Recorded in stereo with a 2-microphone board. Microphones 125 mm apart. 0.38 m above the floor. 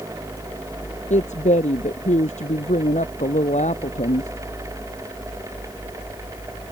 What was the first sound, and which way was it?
A woman speaking, 70° left (ahead or behind).